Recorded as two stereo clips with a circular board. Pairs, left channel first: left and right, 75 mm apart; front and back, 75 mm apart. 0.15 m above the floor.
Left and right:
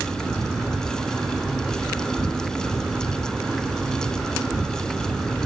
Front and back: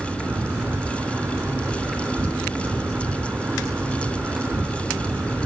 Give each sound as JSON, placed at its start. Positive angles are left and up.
{"t": 0.0, "sound": "an insect", "azimuth_deg": -155, "distance_m": 1.9}